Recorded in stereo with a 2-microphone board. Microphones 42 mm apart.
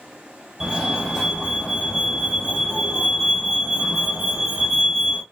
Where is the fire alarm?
5° right (ahead or behind), 2.0 m.